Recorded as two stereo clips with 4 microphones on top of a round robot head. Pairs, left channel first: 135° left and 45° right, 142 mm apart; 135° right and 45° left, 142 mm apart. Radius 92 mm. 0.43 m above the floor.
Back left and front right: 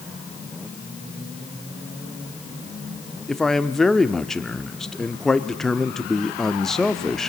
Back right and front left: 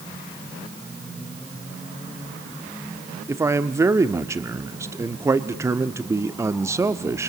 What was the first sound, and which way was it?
A man speaking, 55° left.